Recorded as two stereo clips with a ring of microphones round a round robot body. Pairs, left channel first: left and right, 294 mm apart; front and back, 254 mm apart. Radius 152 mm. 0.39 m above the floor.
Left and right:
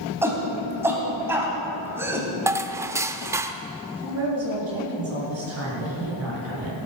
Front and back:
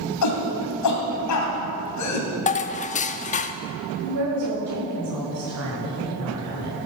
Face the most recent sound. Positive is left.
turn(degrees=-135)